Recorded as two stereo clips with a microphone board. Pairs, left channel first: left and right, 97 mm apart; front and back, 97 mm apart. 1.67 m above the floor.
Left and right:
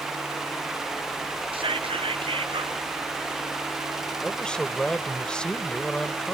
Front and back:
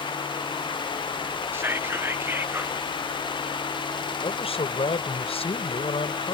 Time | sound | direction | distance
1.5 | whispering | 115° right | ?
4.2 | a man speaking | 10° left | ?